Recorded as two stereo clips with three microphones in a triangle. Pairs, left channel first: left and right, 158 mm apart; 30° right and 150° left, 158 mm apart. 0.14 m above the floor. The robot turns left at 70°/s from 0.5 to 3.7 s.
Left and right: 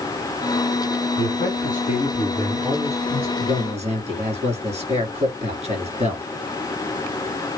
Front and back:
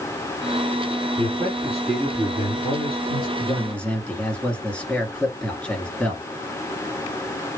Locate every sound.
1.2 s a man speaking: 110° left, 2.5 m; by 3.3 s 40° right, 2.5 m
3.4 s a man speaking: 90° right, 2 m; by 6.2 s 110° right, 2 m